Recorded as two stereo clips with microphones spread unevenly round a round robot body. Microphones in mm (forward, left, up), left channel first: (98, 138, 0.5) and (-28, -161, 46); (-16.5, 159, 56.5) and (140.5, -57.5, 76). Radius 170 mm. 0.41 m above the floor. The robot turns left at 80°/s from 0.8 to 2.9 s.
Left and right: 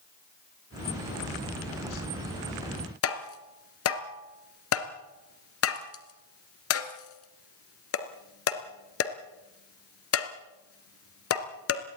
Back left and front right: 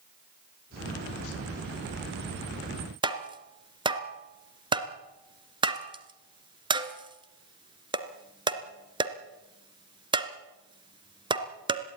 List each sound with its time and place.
3.0 s tapping: 20° left, 2 m